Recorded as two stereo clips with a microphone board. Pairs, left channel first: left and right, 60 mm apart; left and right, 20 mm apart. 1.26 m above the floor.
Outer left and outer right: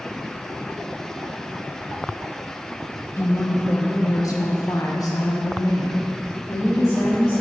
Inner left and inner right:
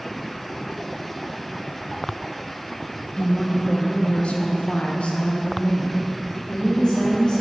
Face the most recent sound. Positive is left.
turn(degrees=40)  # may be behind; listen again after turning